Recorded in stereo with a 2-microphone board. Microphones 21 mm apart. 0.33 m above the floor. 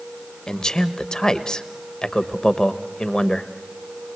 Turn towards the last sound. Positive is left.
turn(degrees=35)  # may be behind; listen again after turning